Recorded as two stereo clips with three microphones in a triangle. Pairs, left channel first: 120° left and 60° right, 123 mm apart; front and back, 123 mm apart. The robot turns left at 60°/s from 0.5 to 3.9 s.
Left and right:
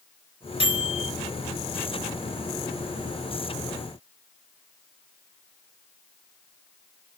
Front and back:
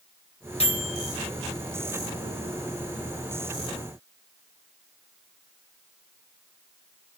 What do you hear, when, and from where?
0.6 s a microwave: 30° right, 3.5 m; by 1.1 s 60° right, 3.5 m